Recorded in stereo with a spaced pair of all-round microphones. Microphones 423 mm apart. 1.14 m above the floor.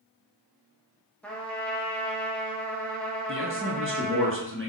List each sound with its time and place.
1.2 s a trumpet: 5° left (ahead or behind), 0.6 m
3.3 s a man speaking: 30° right (ahead or behind), 0.6 m